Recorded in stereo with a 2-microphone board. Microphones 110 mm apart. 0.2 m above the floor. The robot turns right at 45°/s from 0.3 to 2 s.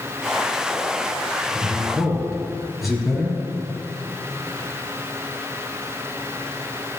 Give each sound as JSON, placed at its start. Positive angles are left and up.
{"t": 1.5, "sound": "a man speaking", "side_deg": -20, "distance_m": 3.5}